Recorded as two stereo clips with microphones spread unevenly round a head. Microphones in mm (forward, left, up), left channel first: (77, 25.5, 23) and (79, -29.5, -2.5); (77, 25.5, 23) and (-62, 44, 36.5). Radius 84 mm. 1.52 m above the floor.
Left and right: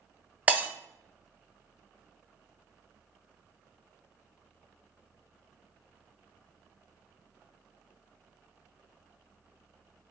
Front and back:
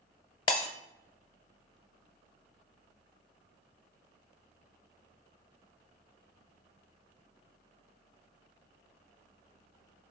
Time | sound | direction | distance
0.5 | breaking glass | 5° left | 1.3 m